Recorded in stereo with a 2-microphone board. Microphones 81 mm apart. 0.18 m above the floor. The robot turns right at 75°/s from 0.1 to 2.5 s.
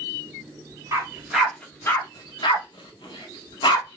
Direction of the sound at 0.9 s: 40° right (ahead or behind).